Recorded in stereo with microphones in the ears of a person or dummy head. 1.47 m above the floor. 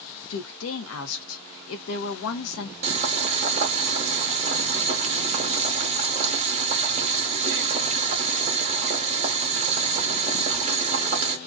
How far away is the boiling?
About 0.7 m.